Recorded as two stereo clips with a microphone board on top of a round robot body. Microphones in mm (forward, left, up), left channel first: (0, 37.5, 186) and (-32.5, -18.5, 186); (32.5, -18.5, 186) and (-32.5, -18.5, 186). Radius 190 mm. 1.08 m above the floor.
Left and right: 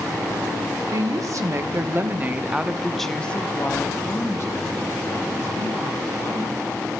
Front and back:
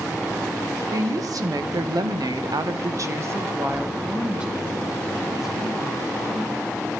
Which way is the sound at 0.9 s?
150° right.